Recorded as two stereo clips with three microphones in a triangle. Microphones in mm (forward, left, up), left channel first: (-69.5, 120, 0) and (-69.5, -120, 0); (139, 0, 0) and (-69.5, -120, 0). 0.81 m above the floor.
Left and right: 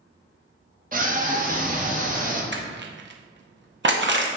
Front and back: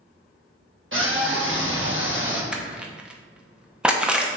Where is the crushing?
65° right, 0.6 m.